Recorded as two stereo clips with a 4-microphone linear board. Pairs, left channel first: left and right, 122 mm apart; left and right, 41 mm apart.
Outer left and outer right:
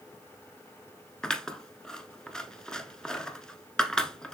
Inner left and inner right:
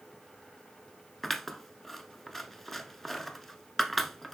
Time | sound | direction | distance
1.2 | scissors | 5° left (ahead or behind) | 0.9 m